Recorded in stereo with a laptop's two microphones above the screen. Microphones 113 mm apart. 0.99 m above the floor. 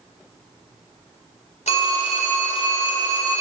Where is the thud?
I don't hear a thud.